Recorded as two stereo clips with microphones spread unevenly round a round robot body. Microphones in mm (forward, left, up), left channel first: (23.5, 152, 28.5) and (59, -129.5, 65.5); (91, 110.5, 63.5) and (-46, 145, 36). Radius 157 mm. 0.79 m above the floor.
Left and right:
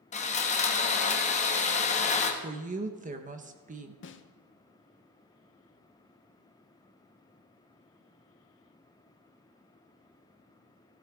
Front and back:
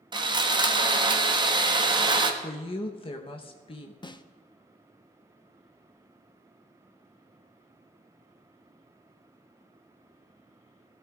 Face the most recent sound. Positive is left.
turn(degrees=50)